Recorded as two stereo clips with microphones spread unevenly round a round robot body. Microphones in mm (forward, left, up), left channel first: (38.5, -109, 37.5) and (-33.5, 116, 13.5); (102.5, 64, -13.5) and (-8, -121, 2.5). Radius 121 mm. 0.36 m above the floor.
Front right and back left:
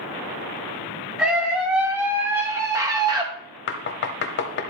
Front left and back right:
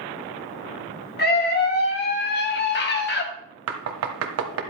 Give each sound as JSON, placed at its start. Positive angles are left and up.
{"t": 1.2, "sound": "a scream", "azimuth_deg": 25, "distance_m": 3.0}
{"t": 3.7, "sound": "knocking", "azimuth_deg": -115, "distance_m": 1.3}